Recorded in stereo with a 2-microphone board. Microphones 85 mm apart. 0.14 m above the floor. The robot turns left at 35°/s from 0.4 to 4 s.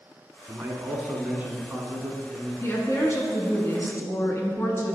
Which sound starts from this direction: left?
A woman speaking, at 2.6 s.